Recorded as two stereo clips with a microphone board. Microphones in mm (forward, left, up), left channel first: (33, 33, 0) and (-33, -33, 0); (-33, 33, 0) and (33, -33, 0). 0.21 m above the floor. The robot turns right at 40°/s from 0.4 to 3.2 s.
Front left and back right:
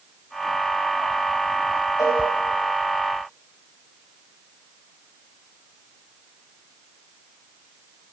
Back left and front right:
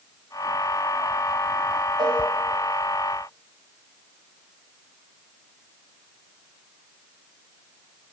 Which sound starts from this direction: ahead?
A cowbell, at 2.0 s.